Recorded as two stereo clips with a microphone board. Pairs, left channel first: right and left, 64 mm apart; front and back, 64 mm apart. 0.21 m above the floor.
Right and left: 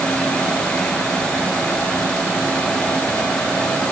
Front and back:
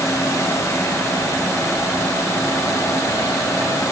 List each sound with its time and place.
Only background noise.